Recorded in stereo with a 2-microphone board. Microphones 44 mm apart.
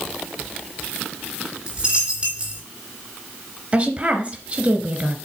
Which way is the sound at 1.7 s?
20° right (ahead or behind).